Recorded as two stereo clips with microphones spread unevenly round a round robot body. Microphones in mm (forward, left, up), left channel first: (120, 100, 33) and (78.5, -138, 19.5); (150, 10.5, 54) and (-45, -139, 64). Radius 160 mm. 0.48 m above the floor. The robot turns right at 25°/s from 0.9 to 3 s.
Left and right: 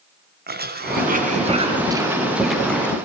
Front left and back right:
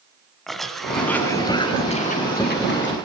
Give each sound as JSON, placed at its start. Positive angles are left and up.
{"t": 0.5, "sound": "a cough", "azimuth_deg": -50, "distance_m": 4.0}